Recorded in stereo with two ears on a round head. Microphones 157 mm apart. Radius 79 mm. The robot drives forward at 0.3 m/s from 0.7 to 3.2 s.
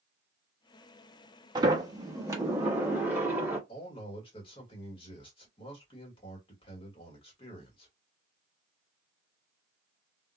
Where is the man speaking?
30° left (ahead or behind), 1.4 m.